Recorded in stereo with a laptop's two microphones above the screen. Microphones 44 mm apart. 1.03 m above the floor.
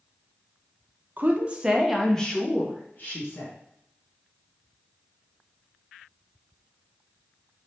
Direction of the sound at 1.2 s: 40° right (ahead or behind).